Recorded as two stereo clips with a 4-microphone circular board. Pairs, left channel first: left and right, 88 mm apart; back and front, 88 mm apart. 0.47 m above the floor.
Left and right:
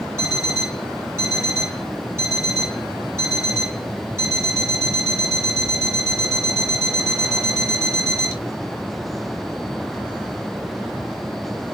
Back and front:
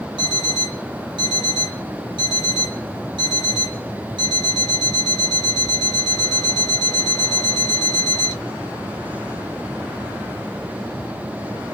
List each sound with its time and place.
0.2 s an alarm clock: 30° right, 1.9 m